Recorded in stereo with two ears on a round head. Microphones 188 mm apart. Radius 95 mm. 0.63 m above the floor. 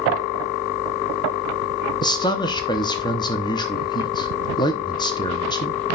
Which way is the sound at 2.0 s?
20° left (ahead or behind).